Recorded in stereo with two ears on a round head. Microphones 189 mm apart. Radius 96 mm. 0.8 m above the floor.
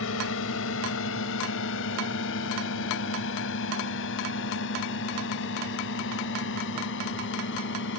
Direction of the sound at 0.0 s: 70° left (ahead or behind).